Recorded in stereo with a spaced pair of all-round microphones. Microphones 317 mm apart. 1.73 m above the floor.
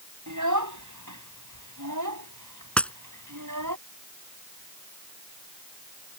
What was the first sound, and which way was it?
A child speaking, 70° right (ahead or behind).